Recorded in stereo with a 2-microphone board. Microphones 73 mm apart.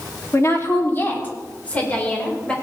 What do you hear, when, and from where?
0.3 s a woman speaking: 45° left (ahead or behind), 2 m; by 2.5 s 15° left (ahead or behind), 5 m